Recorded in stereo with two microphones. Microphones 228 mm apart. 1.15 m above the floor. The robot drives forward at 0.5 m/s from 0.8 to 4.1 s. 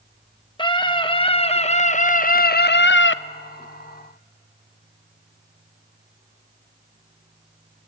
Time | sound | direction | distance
0.6 | a scream | 20° left (ahead or behind) | 1.4 m